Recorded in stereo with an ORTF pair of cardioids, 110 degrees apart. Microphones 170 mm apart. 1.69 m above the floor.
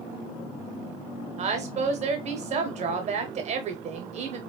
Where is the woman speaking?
40° right, 0.8 m.